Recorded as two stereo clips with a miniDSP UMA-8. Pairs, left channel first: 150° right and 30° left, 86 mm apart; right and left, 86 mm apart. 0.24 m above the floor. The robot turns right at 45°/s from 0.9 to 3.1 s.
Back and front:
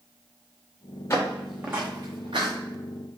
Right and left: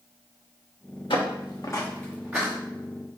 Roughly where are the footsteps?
Right.